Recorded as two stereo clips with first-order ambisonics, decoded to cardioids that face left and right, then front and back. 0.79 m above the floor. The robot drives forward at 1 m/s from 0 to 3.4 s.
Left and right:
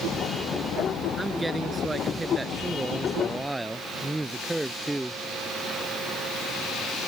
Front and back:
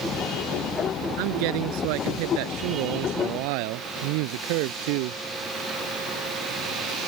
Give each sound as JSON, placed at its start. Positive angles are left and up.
{"t": 1.2, "sound": "a man speaking", "azimuth_deg": -170}